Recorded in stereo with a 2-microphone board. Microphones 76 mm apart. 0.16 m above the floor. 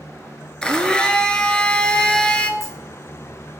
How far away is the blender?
About 0.6 m.